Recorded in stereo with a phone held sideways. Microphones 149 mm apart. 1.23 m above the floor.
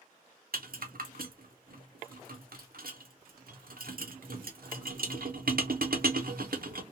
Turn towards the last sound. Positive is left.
turn(degrees=-85)